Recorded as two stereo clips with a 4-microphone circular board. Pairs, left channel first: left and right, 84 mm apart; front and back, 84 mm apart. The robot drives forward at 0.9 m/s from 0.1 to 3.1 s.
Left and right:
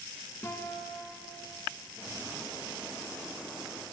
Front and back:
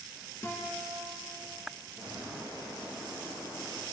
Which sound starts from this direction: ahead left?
A guitar, at 0.4 s.